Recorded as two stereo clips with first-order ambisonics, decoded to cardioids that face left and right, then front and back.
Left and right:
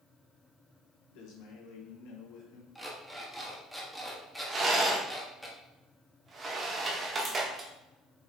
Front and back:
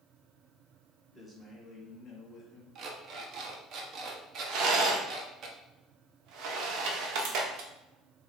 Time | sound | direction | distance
1.1 | a man speaking | 95° left | 1.2 m
2.8 | an alarm clock | straight behind | 0.7 m
4.5 | a rattle | 155° right | 0.8 m